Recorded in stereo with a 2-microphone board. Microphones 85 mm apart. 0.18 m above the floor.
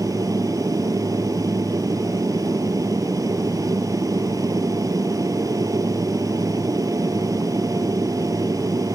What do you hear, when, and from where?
0.0 s an aircraft: 40° right (ahead or behind)